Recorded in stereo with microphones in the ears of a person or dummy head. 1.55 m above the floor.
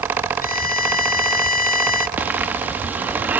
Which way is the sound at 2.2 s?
10° right (ahead or behind).